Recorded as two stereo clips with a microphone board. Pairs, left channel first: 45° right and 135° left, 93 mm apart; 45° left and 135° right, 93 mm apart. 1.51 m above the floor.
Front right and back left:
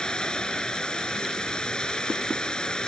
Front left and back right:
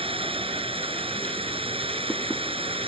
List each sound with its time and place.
0.0 s running water: 125° right